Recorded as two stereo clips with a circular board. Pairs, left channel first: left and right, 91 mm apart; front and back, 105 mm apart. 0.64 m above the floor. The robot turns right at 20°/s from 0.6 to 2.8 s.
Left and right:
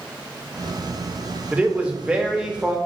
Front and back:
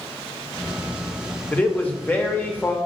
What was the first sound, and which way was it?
A man speaking, 50° right.